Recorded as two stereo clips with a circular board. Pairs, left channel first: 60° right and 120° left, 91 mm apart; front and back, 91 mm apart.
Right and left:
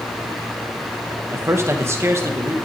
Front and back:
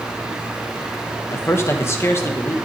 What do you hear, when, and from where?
1.3 s a man speaking: 60° left, 1.5 m